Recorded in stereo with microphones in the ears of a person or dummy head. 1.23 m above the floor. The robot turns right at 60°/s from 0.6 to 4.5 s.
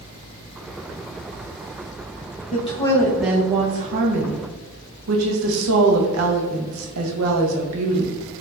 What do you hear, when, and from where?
2.5 s a woman speaking: 140° left, 1.0 m; by 8.2 s 100° right, 1.0 m